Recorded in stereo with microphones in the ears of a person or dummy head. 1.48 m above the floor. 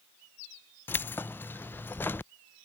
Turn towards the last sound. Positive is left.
turn(degrees=10)  # may be behind; listen again after turning